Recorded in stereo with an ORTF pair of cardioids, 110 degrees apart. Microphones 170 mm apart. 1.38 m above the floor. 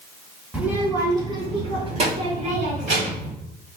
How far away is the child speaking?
About 1.7 m.